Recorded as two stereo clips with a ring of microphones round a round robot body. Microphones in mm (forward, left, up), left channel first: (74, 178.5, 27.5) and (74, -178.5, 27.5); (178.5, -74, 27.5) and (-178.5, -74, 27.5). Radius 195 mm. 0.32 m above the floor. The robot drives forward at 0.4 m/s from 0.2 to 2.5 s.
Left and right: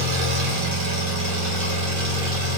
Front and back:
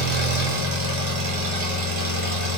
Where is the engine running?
115° right, 1.1 m; by 2.6 s 145° right, 1.8 m.